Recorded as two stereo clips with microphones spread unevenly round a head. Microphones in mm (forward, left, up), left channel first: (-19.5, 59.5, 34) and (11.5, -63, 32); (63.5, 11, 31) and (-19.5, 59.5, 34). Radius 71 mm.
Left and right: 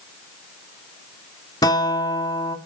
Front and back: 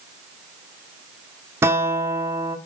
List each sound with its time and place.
1.6 s a guitar: 130° left, 1.0 m